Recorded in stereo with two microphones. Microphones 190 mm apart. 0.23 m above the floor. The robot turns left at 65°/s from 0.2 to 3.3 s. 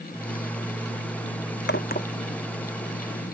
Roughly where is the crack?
Left.